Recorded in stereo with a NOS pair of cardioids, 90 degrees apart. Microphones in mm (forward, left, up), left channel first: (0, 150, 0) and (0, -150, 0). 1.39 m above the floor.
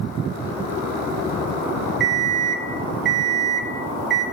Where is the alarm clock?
40° right, 1.4 m.